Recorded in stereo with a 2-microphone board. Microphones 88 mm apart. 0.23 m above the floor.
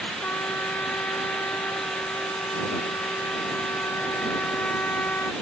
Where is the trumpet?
20° left (ahead or behind).